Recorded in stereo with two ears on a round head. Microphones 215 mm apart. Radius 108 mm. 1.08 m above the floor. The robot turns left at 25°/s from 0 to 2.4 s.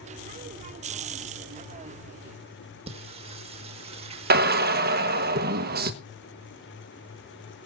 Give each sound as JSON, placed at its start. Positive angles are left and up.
{"t": 2.9, "sound": "singing", "side_deg": -25, "distance_m": 1.6}
{"t": 4.3, "sound": "a drill", "side_deg": -40, "distance_m": 1.3}